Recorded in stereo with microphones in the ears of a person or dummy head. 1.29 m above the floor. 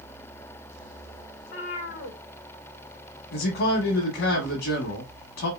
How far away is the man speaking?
About 1.0 m.